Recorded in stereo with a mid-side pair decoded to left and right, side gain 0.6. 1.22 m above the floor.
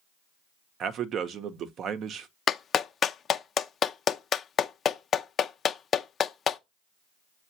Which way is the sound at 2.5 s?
40° left.